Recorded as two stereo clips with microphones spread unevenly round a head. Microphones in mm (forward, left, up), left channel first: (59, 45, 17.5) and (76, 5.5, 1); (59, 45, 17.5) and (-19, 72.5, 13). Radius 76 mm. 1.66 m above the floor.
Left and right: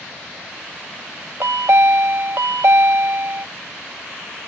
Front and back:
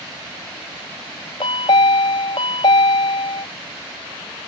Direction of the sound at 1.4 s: 70° right.